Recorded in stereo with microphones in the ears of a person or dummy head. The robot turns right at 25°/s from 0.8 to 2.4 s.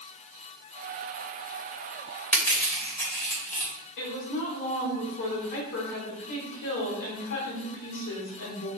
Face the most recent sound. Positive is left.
turn(degrees=65)  # may be behind; listen again after turning